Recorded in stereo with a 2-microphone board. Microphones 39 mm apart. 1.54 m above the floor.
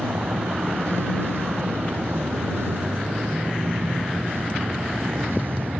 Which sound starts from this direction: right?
A vehicle, at 0.0 s.